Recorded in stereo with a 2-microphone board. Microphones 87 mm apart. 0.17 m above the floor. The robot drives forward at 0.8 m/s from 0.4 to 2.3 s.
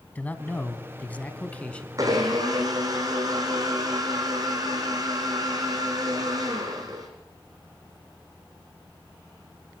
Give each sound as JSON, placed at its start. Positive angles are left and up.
{"t": 0.1, "sound": "a man speaking", "side_deg": 20, "distance_m": 1.1}
{"t": 2.0, "sound": "a blender", "side_deg": -45, "distance_m": 4.5}